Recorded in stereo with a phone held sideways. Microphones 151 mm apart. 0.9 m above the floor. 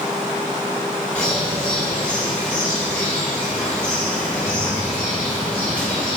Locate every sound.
1.1 s a bird: 10° left (ahead or behind), 2.5 m